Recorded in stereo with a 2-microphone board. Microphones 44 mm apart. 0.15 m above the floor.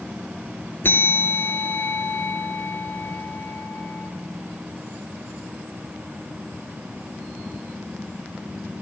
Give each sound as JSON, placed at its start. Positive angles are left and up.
{"t": 0.8, "sound": "a bell", "side_deg": 55, "distance_m": 3.0}